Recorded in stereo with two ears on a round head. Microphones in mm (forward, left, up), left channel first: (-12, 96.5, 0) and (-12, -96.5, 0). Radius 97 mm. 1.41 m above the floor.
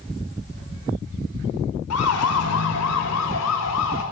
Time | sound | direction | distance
1.9 | a siren | 75° left (ahead or behind) | 5 m